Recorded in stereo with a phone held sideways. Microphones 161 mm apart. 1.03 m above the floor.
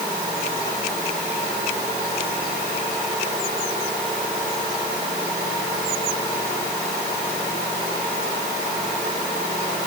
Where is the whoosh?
I don't hear a whoosh.